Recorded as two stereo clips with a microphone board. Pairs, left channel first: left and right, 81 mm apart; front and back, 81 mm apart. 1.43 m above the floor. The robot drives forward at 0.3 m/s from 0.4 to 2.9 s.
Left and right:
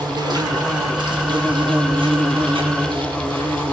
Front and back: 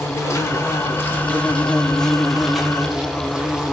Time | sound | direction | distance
0.0 | an insect | 55° right | 1.1 m